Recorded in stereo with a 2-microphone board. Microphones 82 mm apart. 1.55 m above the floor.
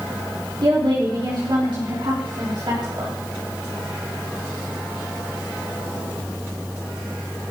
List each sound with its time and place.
0.6 s a woman speaking: 65° right (ahead or behind), 3.5 m